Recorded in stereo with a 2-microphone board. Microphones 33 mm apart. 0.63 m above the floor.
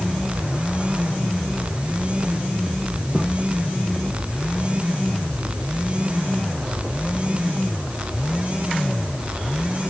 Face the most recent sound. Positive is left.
No sound to turn to.